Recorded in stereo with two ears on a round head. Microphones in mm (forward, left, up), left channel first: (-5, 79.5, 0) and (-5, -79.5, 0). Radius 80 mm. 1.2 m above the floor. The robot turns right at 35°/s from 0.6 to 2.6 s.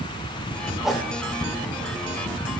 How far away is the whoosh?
About 1.7 m.